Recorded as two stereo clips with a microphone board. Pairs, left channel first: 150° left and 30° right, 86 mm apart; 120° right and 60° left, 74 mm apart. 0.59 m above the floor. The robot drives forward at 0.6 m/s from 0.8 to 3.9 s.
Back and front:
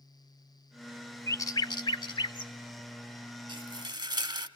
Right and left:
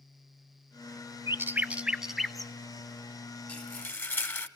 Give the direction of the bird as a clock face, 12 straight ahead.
9 o'clock.